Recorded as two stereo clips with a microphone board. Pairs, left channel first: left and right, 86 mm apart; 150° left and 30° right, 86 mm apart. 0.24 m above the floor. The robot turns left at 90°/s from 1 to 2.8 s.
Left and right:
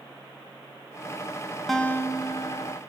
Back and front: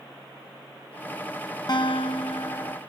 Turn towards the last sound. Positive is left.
turn(degrees=80)